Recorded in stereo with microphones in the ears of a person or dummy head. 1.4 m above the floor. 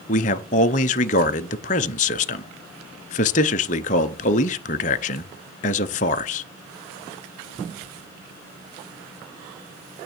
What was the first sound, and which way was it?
A man speaking, 40° left (ahead or behind).